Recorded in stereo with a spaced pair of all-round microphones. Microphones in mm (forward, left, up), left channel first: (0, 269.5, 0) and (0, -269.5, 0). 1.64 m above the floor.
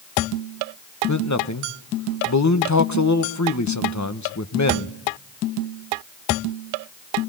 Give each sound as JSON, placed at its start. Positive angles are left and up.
{"t": 1.1, "sound": "a man speaking", "side_deg": 30, "distance_m": 1.1}